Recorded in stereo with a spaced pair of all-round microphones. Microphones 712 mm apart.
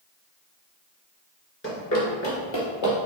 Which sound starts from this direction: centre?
Running footsteps, at 1.6 s.